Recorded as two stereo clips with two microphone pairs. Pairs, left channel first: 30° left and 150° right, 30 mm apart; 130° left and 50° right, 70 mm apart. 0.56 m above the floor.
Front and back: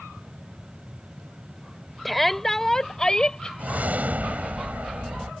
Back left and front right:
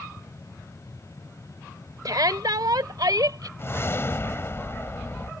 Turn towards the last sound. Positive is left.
turn(degrees=-175)